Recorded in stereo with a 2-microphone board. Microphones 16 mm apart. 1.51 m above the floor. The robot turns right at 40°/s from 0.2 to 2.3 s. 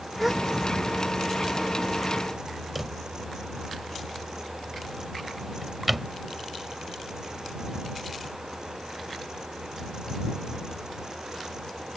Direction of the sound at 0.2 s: 5° right (ahead or behind).